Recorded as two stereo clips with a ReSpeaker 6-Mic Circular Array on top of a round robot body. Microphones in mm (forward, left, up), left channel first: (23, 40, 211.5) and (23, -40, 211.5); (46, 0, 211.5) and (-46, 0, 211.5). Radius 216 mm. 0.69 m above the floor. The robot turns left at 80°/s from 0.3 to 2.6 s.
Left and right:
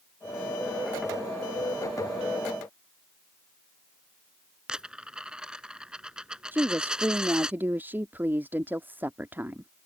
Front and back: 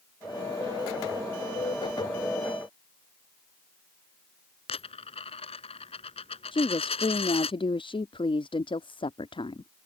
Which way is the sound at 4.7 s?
10° right.